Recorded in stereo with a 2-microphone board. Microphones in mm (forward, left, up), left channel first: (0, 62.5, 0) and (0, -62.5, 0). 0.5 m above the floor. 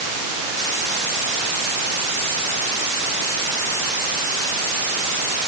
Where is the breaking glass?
I don't hear breaking glass.